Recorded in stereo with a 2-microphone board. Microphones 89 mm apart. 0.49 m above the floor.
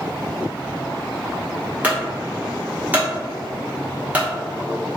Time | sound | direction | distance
1.8 | a clunk | 20° right (ahead or behind) | 1.1 m